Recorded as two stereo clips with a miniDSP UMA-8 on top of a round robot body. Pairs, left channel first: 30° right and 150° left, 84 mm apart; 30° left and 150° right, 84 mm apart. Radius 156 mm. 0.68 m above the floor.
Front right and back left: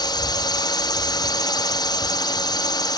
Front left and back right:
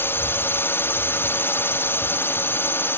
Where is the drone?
25° right.